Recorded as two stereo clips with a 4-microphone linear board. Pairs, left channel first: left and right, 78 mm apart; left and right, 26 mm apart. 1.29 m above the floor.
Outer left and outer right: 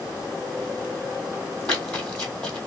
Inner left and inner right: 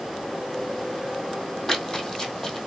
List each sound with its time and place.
1.7 s running footsteps: 15° left (ahead or behind), 1.6 m